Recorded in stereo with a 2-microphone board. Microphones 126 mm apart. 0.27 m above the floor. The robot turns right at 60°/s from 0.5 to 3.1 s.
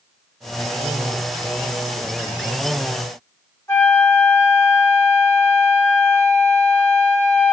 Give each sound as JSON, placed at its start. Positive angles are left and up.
{"t": 3.7, "sound": "a flute", "side_deg": 20, "distance_m": 1.2}